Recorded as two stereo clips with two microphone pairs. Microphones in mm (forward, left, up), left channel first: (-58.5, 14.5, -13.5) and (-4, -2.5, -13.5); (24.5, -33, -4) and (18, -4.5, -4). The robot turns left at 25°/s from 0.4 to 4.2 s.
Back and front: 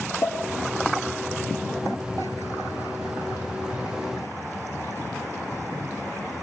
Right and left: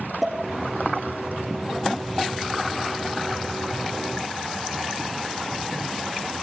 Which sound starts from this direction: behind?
A pop, at 0.2 s.